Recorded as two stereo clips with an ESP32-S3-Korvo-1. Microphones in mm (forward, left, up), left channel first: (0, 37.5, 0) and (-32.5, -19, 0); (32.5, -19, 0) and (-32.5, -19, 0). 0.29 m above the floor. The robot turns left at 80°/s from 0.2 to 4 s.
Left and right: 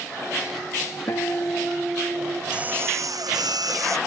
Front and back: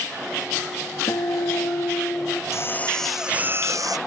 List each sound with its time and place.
1.1 s a guitar: 25° left; by 2.4 s 80° right
2.5 s a drill: 45° right; by 4.0 s 160° right